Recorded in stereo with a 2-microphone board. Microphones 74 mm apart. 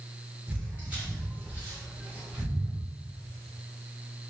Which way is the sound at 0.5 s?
20° right (ahead or behind).